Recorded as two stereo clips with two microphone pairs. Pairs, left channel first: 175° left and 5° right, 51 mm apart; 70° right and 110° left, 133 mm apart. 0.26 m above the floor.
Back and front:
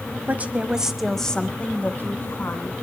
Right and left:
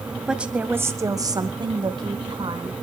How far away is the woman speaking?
About 1.4 m.